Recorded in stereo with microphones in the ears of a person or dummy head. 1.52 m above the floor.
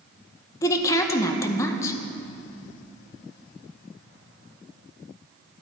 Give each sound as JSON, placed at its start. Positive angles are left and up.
{"t": 0.6, "sound": "a woman speaking", "side_deg": 20, "distance_m": 0.9}